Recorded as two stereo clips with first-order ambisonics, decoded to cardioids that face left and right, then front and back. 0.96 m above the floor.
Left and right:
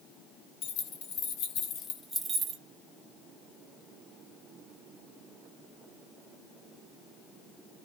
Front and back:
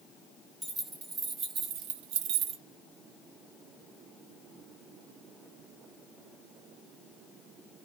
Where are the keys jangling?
105° left, 1.5 m; by 2.6 s 135° right, 0.7 m.